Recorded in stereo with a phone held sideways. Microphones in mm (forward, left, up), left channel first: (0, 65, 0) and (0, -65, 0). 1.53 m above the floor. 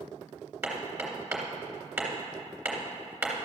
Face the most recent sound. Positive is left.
turn(degrees=-10)  # may be behind; listen again after turning